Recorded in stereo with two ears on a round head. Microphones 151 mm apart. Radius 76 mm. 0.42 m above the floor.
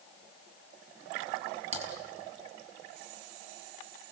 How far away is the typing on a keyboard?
About 3.5 m.